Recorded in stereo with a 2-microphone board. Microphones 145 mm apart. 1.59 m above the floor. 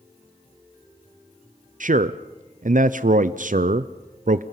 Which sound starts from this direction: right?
A man speaking, at 1.8 s.